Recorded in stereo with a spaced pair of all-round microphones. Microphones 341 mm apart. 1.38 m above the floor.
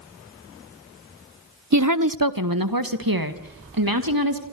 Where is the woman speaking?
55° right (ahead or behind), 0.7 m; by 4.4 s 85° right, 3 m.